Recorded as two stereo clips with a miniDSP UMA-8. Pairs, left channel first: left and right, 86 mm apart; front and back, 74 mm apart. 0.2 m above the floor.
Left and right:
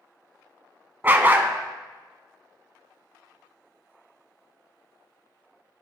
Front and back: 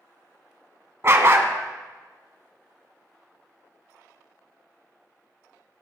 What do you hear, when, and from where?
1.0 s a dog barking: 145° right, 0.7 m